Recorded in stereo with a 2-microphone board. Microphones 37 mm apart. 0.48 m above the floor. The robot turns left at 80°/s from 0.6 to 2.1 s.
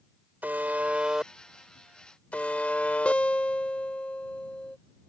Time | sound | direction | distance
0.4 | a buzzer | 105° right | ?
3.0 | a guitar | 35° left (ahead or behind) | ?